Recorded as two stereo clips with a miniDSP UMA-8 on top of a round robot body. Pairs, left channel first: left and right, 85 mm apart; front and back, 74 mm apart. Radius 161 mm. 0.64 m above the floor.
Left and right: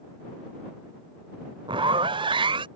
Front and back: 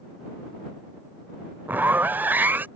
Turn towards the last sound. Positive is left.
turn(degrees=-115)